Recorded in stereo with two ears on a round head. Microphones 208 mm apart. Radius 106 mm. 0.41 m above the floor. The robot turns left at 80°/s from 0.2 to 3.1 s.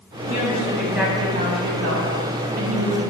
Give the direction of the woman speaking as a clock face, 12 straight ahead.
10 o'clock.